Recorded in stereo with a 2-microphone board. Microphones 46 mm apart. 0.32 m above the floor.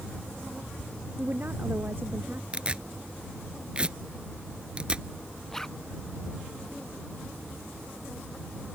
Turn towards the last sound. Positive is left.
turn(degrees=10)  # may be behind; listen again after turning